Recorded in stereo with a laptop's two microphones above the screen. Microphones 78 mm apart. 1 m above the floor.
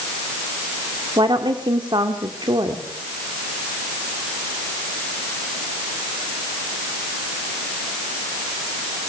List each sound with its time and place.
1.2 s a woman speaking: 75° right (ahead or behind), 2 m